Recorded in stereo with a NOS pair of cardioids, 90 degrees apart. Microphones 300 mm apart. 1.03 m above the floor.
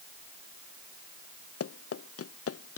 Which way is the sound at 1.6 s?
50° left.